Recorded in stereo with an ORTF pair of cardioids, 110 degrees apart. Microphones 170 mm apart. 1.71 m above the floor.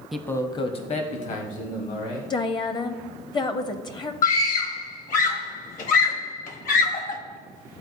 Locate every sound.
0.1 s a man speaking: straight ahead, 0.6 m; by 2.2 s 55° left, 2 m
2.3 s a woman speaking: 25° left, 0.8 m
4.2 s a scream: 50° left, 1.4 m